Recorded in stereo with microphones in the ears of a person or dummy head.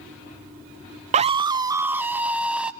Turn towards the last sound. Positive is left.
turn(degrees=-10)  # may be behind; listen again after turning